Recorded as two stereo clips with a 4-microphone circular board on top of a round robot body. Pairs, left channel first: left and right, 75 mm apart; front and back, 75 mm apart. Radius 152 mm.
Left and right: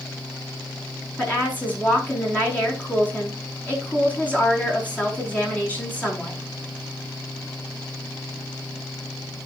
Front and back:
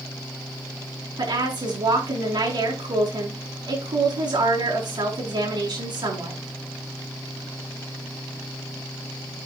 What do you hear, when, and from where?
1.2 s a woman speaking: 160° left, 6 m